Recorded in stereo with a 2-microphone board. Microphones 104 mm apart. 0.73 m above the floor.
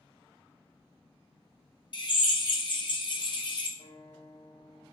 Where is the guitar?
80° left, 1.8 m.